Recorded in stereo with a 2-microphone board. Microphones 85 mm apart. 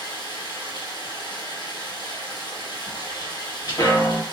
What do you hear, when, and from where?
0.0 s running water: 60° left (ahead or behind), 1.1 m
2.9 s footsteps: 45° left (ahead or behind), 1.4 m; by 4.2 s 50° left (ahead or behind), 0.6 m